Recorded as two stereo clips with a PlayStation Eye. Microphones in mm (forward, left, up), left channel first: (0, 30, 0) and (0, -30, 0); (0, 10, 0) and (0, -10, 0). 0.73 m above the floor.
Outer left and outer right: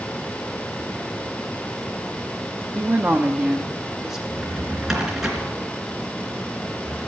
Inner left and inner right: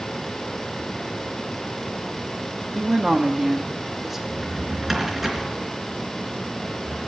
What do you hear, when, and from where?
2.8 s a woman speaking: 40° right (ahead or behind), 0.8 m; by 4.2 s 5° right (ahead or behind), 1.3 m
4.3 s a drawer: 5° right (ahead or behind), 3 m